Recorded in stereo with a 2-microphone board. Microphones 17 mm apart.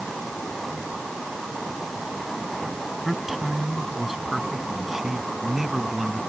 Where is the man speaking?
10° right (ahead or behind); by 6.2 s 15° right (ahead or behind).